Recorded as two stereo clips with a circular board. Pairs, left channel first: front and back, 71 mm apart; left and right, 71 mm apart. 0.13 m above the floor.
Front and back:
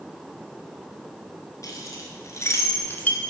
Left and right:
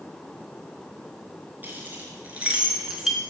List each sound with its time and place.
1.6 s keys jangling: 30° right, 2 m; by 3.2 s 10° right, 1.0 m